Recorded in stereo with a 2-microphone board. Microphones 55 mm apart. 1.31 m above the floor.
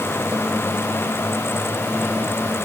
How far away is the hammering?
No hammering in this recording.